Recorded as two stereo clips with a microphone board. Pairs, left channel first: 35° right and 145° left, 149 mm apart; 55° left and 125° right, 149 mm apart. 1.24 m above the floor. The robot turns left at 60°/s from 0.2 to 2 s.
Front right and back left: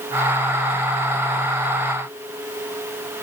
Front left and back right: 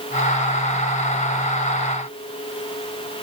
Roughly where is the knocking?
I don't hear knocking.